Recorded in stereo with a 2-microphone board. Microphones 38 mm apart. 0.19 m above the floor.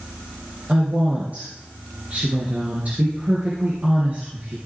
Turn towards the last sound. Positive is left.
turn(degrees=-40)  # may be behind; listen again after turning